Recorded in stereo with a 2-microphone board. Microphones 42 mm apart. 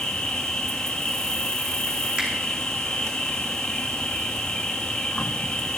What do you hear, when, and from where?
0.0 s an insect: 15° left (ahead or behind), 1.1 m
2.2 s a finger snap: 30° right (ahead or behind), 4 m